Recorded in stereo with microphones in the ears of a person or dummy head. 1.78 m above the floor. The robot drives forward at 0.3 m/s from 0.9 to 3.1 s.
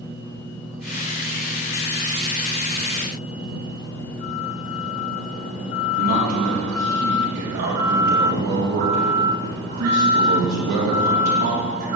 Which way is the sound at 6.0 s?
65° right (ahead or behind).